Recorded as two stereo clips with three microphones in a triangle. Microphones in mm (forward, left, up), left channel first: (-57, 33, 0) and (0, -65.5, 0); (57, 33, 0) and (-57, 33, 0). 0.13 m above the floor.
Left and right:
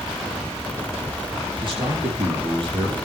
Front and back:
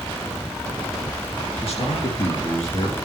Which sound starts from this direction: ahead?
A man speaking, at 1.6 s.